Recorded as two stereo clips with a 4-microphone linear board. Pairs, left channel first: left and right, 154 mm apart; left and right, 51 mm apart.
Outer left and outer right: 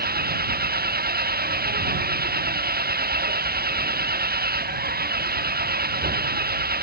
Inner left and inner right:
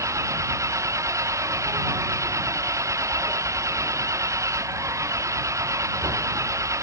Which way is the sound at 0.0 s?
90° right.